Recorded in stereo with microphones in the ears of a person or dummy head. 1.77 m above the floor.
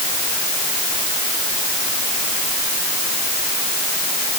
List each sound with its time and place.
Only background noise.